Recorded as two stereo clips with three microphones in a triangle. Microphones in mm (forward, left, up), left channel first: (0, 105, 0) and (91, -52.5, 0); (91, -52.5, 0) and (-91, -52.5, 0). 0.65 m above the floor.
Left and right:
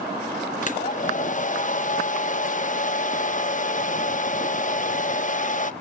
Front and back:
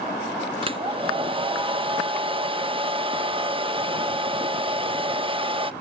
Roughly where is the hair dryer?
Behind left.